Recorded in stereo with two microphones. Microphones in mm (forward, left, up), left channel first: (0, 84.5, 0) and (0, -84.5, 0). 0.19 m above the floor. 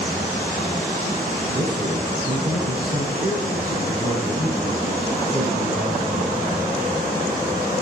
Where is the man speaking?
55° right (ahead or behind), 4 m.